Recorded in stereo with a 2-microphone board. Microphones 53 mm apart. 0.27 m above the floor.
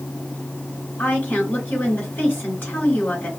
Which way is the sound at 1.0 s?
35° left (ahead or behind).